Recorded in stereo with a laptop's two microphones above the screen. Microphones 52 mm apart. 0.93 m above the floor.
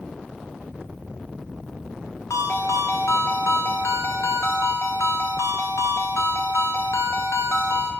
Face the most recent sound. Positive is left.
turn(degrees=70)  # may be behind; listen again after turning